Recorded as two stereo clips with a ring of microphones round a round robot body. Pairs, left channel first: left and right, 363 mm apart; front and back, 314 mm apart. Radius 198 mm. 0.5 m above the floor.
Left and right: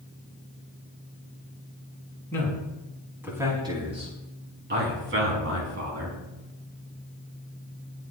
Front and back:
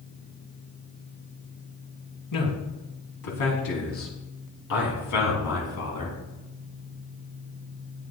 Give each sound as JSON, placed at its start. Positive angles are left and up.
{"t": 2.3, "sound": "a man speaking", "azimuth_deg": 5, "distance_m": 5.5}